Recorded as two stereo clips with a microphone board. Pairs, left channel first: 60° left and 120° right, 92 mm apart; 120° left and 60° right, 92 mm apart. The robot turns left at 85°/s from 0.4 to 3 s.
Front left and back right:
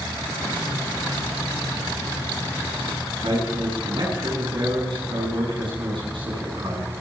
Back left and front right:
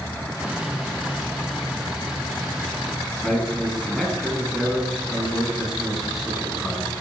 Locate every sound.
3.2 s a man speaking: 150° right, 8 m